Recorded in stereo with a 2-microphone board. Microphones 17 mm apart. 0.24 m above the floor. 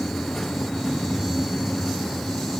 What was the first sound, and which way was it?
Only background noise.